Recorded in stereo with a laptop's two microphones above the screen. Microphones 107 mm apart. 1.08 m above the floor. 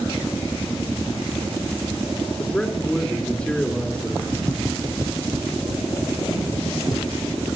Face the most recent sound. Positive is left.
turn(degrees=-50)  # may be behind; listen again after turning